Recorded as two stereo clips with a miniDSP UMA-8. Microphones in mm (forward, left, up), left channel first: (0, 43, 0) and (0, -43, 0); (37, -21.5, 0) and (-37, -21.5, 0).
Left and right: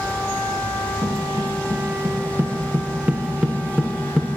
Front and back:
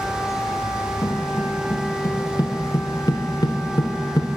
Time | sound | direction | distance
1.0 | footsteps | 45° right | 2.5 m